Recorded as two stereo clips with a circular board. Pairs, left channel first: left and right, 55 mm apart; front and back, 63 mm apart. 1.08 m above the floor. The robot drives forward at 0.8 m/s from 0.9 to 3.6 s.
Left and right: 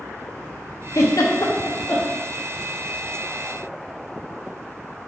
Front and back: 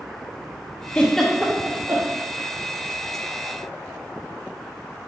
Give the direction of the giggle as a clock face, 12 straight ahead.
10 o'clock.